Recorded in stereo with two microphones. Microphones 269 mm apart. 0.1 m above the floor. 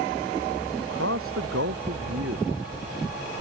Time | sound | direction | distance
0.8 | a man speaking | 55° right (ahead or behind) | ?